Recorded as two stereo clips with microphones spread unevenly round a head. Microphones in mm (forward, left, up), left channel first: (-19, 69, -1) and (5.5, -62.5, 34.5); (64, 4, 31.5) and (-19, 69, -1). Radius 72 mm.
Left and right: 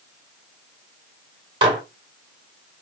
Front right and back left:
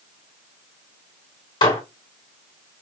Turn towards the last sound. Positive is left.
turn(degrees=-45)